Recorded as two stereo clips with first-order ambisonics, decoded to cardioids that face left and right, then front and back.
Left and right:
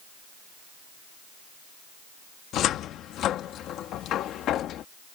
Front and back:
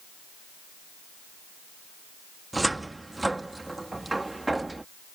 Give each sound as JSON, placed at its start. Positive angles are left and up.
{"t": 2.5, "sound": "a cupboard door", "azimuth_deg": 100}